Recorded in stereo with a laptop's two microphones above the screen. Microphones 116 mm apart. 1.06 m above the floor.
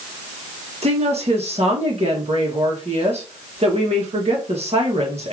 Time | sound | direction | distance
0.8 | a woman speaking | 65° right (ahead or behind) | 1.4 m